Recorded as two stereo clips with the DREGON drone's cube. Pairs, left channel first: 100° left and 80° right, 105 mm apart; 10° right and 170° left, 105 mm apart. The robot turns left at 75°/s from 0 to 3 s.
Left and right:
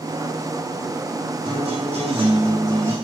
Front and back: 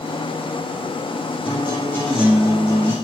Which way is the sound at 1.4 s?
45° right.